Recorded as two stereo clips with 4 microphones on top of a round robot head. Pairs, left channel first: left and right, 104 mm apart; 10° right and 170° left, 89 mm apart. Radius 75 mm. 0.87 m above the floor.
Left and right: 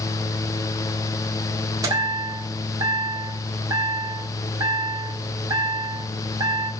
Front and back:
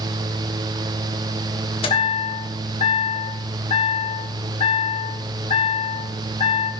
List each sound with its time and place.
1.8 s a chime: 25° right, 1.9 m